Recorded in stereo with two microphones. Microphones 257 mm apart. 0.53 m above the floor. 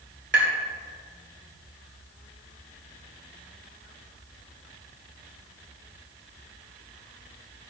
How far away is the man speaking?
I don't hear a man speaking.